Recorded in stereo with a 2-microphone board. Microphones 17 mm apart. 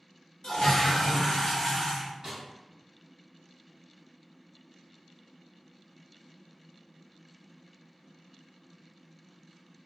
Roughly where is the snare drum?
Right.